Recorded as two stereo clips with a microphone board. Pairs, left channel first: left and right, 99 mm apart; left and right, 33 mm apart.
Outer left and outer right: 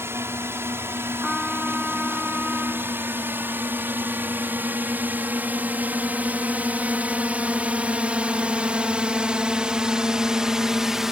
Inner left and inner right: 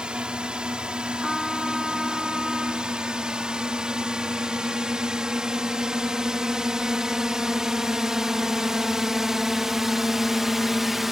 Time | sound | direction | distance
0.0 | a drone | 25° right (ahead or behind) | ?
1.2 | a trumpet | centre (ahead or behind) | ?